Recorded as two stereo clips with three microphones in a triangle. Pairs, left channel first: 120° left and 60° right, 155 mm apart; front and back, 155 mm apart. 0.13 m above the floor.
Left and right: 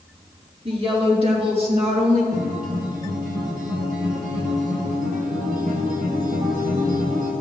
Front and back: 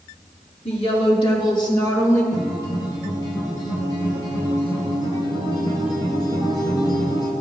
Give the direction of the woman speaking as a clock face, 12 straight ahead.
1 o'clock.